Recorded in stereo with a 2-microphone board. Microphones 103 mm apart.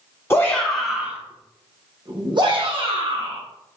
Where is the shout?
20° left (ahead or behind), 0.7 m; by 3.4 s 60° right (ahead or behind), 1.7 m.